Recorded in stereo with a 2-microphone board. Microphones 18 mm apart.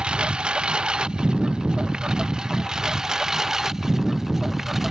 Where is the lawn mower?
80° right; by 4.9 s 20° right (ahead or behind).